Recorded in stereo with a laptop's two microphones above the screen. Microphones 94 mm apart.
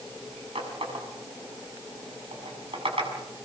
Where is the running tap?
85° right, 6 m.